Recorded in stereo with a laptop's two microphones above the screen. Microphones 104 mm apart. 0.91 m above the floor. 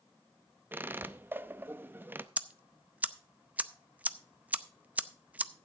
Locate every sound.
0.7 s a squeak: 20° right (ahead or behind), 0.6 m
2.4 s ticking: 15° right (ahead or behind), 0.6 m